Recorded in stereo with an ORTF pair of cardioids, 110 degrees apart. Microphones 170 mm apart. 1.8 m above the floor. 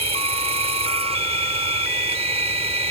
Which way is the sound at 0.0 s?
35° right.